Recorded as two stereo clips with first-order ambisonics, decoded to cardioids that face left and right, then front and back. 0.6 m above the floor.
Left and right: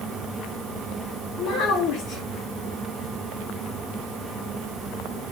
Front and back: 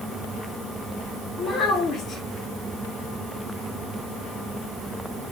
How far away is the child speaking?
About 0.6 m.